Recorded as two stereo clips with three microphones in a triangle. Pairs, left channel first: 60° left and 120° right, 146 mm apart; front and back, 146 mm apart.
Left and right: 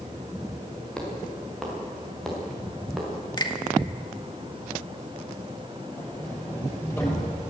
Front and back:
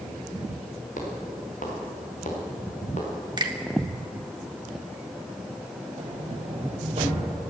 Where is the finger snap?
120° left, 1.8 m.